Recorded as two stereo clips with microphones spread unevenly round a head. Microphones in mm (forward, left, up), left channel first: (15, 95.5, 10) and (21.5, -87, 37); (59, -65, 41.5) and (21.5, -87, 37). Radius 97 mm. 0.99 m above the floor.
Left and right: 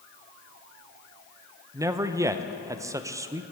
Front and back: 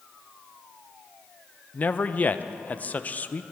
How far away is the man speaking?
About 0.5 m.